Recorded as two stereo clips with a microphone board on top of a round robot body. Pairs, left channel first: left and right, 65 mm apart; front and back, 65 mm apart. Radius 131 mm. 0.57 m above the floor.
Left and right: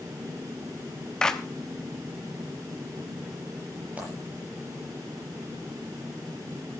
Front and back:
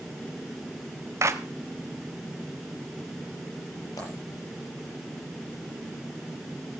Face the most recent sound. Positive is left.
turn(degrees=-25)